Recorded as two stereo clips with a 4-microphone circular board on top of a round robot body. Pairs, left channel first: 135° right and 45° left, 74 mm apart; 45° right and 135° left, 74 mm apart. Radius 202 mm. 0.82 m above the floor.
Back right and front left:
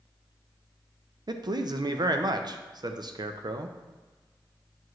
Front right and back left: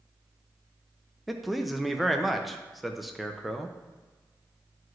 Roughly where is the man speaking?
Ahead left.